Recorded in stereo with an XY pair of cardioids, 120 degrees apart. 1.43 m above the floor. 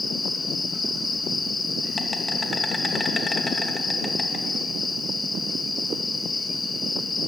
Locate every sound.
0.0 s an insect: 20° left, 2.5 m